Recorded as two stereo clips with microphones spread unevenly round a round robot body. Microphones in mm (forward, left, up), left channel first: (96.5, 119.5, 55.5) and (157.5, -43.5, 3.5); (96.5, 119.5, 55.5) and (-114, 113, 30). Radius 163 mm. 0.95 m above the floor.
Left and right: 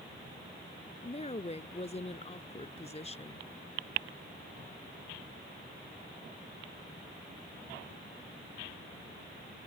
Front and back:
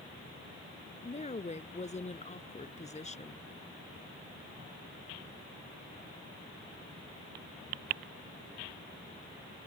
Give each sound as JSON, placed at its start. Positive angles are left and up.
{"t": 1.0, "sound": "a woman speaking", "azimuth_deg": 60}